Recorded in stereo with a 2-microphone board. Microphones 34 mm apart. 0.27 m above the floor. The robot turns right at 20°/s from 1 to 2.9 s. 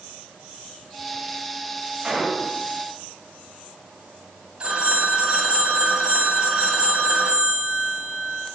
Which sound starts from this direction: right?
A phone ringing, at 4.6 s.